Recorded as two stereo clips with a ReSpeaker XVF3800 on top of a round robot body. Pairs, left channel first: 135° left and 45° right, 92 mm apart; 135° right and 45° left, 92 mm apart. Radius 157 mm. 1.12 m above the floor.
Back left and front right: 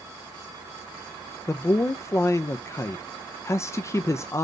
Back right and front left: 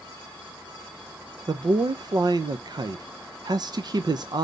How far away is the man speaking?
About 0.6 m.